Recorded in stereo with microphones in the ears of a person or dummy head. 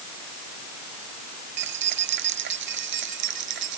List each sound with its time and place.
1.6 s keys jangling: 65° right (ahead or behind)